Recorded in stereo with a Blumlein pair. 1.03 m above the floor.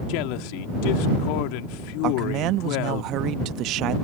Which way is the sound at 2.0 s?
35° right.